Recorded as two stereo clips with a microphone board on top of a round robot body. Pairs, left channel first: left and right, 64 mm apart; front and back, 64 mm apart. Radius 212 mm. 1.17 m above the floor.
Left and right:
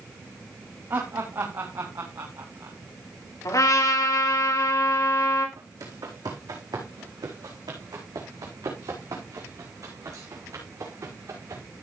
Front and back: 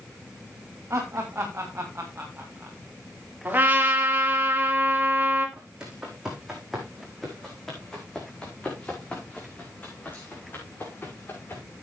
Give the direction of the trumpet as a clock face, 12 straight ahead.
8 o'clock.